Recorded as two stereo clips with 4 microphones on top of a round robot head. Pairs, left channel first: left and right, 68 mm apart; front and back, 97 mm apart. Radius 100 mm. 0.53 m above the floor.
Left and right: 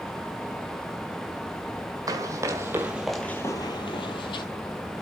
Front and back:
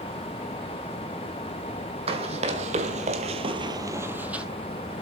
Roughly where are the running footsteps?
Behind right.